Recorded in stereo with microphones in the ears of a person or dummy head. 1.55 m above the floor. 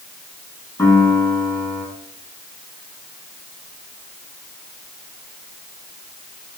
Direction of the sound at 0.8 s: 10° left (ahead or behind).